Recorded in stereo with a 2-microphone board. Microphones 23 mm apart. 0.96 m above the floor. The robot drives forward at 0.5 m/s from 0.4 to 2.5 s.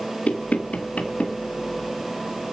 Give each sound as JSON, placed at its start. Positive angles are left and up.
{"t": 0.3, "sound": "knocking", "side_deg": 75, "distance_m": 2.5}